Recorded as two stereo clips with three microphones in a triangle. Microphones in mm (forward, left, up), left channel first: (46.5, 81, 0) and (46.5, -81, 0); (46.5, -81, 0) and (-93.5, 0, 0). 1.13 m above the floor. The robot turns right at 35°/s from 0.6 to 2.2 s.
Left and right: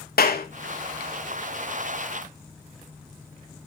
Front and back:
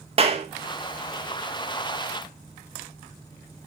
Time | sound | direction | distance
0.2 | a clap | 100° left | 1.5 m